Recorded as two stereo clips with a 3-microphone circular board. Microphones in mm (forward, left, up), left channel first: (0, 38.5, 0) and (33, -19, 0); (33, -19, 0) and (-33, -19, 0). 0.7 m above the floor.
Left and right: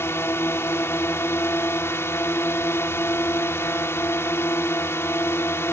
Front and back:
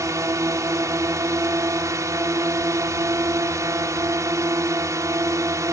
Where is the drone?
160° left.